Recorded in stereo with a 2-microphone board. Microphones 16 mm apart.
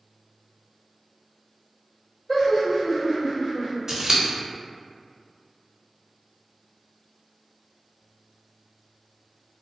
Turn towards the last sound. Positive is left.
turn(degrees=-45)  # may be behind; listen again after turning